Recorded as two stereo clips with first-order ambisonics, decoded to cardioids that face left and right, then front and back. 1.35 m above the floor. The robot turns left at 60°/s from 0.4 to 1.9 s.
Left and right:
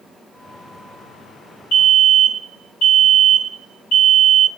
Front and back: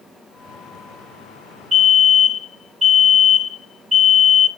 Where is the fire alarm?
120° left, 1.9 m; by 4.5 s 105° left, 1.9 m.